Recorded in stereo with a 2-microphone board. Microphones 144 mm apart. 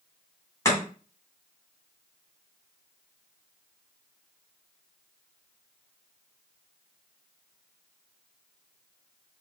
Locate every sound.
0.7 s chopping: 20° left (ahead or behind), 2 m